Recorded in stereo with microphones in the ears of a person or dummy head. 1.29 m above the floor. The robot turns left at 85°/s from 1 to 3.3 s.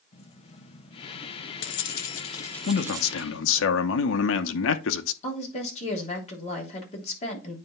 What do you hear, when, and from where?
0.1 s keys jangling: 145° left, 0.8 m; by 3.7 s 50° right, 0.8 m
2.7 s a man speaking: 135° left, 0.8 m; by 5.1 s 80° left, 0.8 m
5.2 s a woman speaking: 40° left (ahead or behind), 3 m